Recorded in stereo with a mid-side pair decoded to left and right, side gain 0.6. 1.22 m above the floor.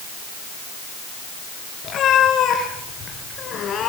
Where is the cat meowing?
45° left, 6 m; by 3.9 s 40° left, 5 m.